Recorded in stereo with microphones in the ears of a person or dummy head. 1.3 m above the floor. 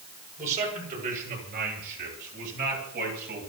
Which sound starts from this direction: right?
A man speaking, at 0.4 s.